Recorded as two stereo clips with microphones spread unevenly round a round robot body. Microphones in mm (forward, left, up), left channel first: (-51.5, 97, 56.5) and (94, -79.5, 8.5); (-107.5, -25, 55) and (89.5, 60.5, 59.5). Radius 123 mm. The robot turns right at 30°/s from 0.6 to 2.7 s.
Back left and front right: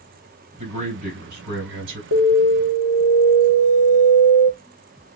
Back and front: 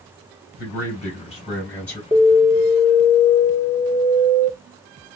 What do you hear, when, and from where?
0.6 s a man speaking: 115° right, 3.5 m; by 2.0 s 70° right, 3.5 m
2.1 s an alarm: 60° right, 3.5 m; by 4.5 s 45° right, 3.5 m